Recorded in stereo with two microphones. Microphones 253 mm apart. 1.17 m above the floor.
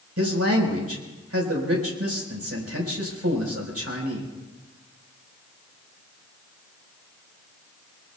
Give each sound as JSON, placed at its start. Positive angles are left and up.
{"t": 0.2, "sound": "a man speaking", "side_deg": -75, "distance_m": 4.5}